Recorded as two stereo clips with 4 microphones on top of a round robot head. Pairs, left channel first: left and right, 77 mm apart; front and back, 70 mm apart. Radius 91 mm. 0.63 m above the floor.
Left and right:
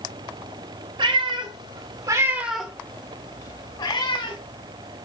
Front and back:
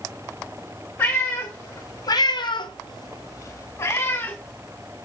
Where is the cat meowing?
70° right, 2 m; by 4.4 s 60° left, 2.5 m.